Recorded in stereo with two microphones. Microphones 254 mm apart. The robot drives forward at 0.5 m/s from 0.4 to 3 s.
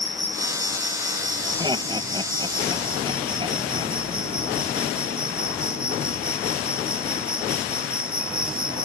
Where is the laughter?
15° right (ahead or behind); by 4.0 s 20° right (ahead or behind).